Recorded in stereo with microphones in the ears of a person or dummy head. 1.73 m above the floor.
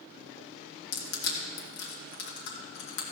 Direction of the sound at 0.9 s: 65° left (ahead or behind).